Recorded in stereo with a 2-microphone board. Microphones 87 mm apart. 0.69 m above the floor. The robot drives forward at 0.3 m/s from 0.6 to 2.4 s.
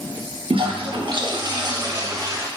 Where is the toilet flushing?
80° right, 0.5 m; by 2.5 s 40° right (ahead or behind), 0.8 m.